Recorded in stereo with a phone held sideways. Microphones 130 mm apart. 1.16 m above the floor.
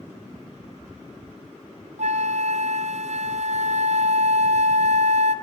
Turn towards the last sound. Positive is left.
turn(degrees=-65)  # may be behind; listen again after turning